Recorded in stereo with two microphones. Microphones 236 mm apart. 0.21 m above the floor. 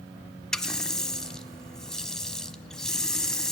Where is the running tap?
5° left (ahead or behind), 0.9 m.